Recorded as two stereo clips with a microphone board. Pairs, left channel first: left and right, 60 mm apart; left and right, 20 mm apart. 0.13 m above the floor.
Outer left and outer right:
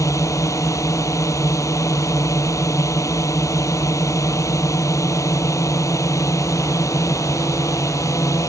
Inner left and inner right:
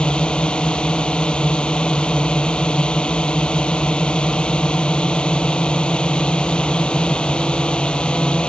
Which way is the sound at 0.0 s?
65° left (ahead or behind).